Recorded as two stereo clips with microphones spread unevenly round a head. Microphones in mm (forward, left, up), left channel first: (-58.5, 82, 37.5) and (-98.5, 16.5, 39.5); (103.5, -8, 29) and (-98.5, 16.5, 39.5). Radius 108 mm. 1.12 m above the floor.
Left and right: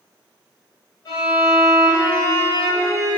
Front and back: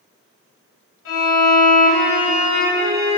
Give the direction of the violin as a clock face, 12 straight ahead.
12 o'clock.